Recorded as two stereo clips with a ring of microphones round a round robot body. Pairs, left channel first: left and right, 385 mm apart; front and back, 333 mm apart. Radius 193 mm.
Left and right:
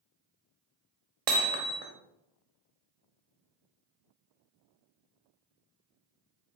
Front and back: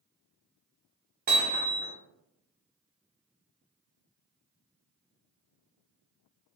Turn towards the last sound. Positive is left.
turn(degrees=-110)